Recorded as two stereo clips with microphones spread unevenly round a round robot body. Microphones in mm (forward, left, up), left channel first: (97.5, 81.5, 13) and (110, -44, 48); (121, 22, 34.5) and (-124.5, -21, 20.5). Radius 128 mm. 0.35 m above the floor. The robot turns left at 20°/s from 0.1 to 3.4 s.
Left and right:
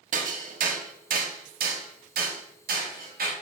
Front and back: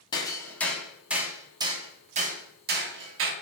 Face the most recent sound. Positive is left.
turn(degrees=-130)